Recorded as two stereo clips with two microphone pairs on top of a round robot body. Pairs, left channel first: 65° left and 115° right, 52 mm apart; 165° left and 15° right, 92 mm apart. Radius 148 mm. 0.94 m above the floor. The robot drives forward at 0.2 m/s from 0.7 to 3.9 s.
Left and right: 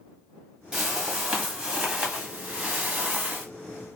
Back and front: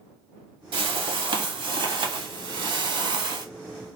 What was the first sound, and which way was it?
A whoosh, 40° right.